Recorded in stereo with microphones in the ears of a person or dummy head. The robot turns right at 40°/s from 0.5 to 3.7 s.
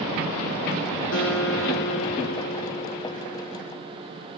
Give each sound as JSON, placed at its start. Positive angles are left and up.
{"t": 1.1, "sound": "a guitar", "azimuth_deg": 85, "distance_m": 4.0}